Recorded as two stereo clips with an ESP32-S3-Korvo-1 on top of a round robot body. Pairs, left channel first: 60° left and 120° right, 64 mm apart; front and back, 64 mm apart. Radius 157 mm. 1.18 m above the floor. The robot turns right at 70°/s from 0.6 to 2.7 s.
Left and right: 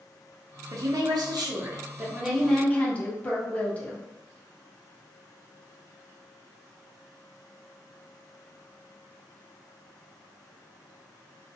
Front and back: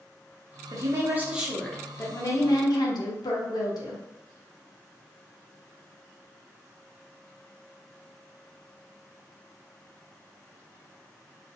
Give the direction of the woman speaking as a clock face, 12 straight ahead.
5 o'clock.